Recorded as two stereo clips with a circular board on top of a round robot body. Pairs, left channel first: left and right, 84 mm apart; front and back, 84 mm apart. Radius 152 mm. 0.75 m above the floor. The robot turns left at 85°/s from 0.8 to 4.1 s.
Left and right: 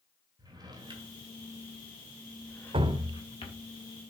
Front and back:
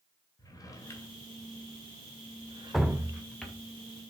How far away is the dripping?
About 0.8 m.